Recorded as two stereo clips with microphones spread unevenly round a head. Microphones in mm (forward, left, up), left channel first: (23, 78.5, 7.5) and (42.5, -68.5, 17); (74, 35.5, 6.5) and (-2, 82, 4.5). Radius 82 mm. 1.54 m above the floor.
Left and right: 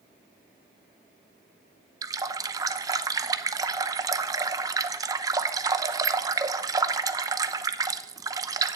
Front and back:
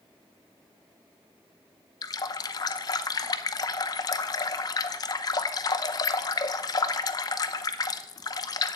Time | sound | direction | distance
2.0 | a running tap | 30° right | 0.7 m